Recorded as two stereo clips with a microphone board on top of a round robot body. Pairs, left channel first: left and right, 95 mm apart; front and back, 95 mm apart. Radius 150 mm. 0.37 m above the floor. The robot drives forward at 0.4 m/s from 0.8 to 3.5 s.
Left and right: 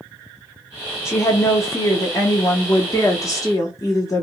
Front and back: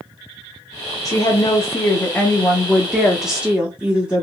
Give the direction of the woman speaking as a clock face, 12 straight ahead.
11 o'clock.